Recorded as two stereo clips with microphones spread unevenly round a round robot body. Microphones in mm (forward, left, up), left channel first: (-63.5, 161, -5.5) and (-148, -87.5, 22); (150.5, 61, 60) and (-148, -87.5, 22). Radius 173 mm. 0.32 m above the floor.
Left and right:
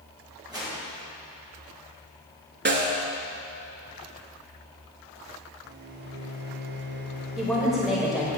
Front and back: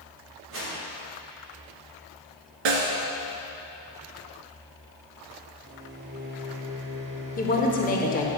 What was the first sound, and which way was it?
A whoosh, 175° left.